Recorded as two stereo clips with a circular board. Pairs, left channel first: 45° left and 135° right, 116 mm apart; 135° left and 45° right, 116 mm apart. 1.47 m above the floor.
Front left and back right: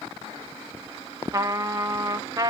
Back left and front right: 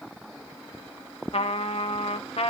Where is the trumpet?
165° left, 0.9 m.